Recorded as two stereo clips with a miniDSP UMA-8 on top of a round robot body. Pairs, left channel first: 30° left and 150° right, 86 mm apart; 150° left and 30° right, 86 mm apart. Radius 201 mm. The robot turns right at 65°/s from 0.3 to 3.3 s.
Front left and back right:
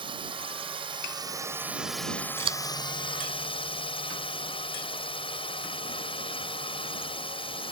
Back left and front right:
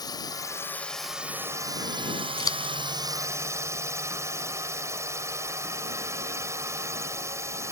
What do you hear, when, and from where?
0.0 s a drone: 170° right; by 7.7 s 25° left
2.4 s scissors: 170° right; by 2.7 s 145° right